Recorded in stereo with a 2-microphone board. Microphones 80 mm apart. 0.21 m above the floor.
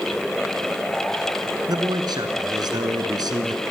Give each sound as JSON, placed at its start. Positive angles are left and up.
{"t": 1.7, "sound": "a man speaking", "side_deg": -60, "distance_m": 2.0}